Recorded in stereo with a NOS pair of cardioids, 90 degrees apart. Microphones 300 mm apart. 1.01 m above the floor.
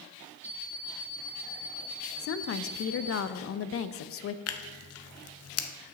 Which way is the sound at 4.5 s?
50° left.